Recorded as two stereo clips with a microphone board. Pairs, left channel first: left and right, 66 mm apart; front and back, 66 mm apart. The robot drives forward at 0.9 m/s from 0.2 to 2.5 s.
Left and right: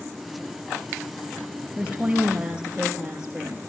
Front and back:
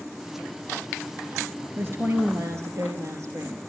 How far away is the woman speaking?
About 1.8 m.